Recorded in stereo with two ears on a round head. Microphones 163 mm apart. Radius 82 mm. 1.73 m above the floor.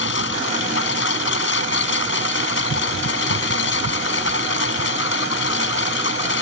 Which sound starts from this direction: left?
A lawn mower, at 0.0 s.